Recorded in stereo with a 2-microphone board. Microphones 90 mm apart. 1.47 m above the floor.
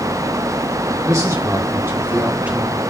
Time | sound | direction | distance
1.0 | a man speaking | 40° right (ahead or behind) | 3 m